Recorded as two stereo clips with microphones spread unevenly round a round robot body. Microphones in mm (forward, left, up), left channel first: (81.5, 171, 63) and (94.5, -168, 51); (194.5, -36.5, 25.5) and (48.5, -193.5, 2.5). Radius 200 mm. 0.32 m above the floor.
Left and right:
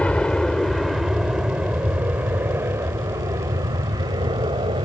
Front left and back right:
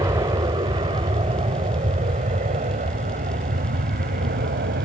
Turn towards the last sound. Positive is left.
turn(degrees=-160)